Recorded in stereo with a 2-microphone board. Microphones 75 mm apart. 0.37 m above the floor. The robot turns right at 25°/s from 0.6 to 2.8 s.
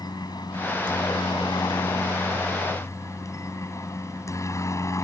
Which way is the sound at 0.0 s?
75° left.